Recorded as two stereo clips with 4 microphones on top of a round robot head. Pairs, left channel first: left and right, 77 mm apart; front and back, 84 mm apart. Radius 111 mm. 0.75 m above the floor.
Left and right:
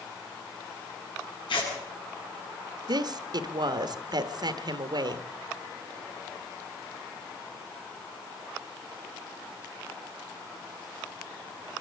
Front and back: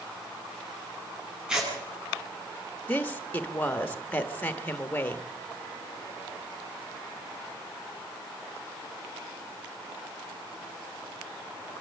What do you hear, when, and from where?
1.5 s tearing paper: 95° left, 8.5 m
2.9 s a woman speaking: 75° right, 1.4 m